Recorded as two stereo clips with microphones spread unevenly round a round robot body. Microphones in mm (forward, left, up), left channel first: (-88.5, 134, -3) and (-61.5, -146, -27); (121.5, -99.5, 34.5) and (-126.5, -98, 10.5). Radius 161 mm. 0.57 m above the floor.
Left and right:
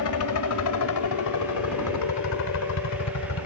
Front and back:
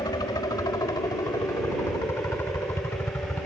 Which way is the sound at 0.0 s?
75° left.